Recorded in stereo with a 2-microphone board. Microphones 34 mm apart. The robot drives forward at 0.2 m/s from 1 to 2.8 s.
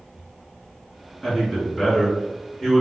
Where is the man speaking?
Centre (ahead or behind), 1.6 m.